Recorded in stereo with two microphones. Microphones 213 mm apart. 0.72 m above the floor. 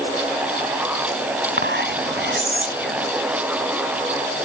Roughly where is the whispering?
Right.